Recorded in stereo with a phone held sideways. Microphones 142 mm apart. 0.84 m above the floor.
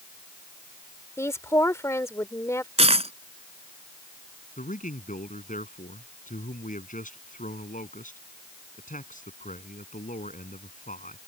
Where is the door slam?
I don't hear a door slam.